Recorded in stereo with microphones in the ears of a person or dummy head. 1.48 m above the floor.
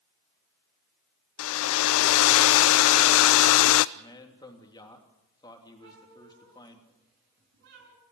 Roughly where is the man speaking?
Centre.